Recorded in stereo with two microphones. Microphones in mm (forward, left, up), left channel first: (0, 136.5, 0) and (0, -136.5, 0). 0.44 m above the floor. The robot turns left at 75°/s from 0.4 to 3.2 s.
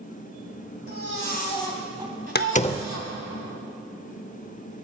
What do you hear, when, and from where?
0.9 s a baby crying: 70° left, 2.5 m; by 3.1 s 100° right, 2.5 m
2.4 s a door slam: 40° left (ahead or behind), 0.6 m; by 2.9 s 10° left (ahead or behind), 0.6 m